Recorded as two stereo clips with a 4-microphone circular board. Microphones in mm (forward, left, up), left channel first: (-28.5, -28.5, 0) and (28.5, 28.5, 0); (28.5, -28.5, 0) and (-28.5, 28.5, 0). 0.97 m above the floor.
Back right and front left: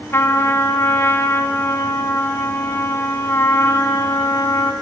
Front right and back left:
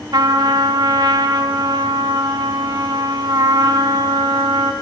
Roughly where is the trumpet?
Behind.